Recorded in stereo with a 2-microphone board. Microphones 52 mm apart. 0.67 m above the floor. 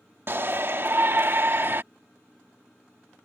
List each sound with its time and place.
0.3 s a shout: 45° right (ahead or behind)